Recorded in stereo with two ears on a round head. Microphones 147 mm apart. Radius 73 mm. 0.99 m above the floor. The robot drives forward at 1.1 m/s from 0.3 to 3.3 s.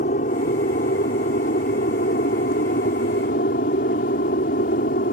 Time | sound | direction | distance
0.0 | an aircraft | 50° left (ahead or behind) | ?